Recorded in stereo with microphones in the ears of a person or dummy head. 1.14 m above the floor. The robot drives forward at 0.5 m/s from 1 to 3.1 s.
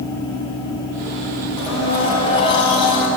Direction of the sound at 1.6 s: 30° left (ahead or behind).